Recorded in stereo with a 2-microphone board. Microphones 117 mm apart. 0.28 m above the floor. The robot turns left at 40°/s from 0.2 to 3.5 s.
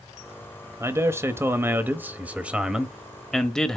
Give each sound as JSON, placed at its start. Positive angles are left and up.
{"t": 0.8, "sound": "a man speaking", "side_deg": -20, "distance_m": 0.9}